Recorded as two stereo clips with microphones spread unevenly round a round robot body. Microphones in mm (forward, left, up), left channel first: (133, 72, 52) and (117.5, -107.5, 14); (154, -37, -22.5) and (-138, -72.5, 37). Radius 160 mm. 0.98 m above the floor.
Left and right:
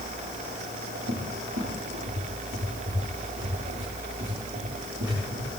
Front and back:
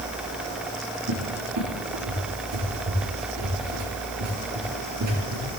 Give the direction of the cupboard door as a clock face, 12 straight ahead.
5 o'clock.